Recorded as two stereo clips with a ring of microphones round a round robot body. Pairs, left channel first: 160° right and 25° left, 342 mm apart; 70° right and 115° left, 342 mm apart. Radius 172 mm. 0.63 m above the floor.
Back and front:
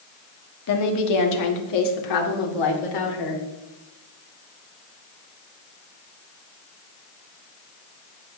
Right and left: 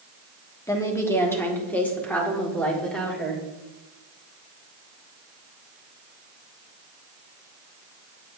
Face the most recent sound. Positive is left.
turn(degrees=-155)